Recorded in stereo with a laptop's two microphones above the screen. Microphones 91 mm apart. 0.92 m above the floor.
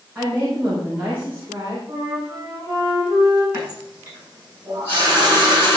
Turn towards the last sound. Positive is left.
turn(degrees=-25)  # may be behind; listen again after turning